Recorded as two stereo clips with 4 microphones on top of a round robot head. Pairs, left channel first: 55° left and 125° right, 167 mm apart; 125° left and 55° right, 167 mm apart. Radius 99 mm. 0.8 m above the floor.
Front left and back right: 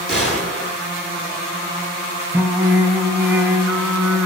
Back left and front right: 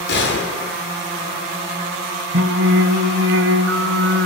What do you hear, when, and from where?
0.1 s a gunshot: 150° left, 10 m
2.3 s singing: 45° right, 2 m